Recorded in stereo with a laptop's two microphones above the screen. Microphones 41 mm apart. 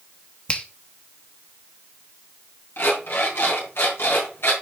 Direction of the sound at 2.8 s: 85° left.